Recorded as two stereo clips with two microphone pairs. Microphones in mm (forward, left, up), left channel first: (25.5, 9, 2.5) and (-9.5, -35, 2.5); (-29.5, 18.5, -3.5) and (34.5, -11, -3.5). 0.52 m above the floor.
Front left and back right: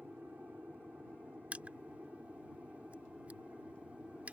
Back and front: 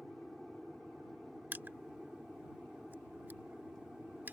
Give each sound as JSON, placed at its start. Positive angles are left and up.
{"t": 0.0, "sound": "an aircraft", "azimuth_deg": -115}
{"t": 1.5, "sound": "crushing", "azimuth_deg": -75}